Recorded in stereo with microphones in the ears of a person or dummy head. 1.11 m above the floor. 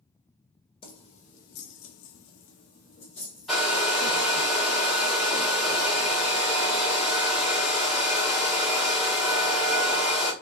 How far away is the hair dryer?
About 1.0 m.